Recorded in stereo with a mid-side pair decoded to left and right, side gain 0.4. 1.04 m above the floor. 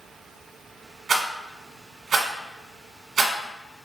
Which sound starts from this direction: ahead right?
A rattle, at 1.1 s.